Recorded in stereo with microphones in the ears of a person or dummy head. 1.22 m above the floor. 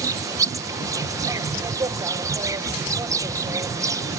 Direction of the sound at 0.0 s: 15° right (ahead or behind).